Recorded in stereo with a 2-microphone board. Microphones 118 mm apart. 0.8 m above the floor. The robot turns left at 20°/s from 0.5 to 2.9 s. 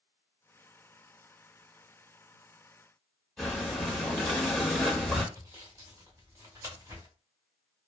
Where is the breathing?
5° left (ahead or behind), 0.8 m.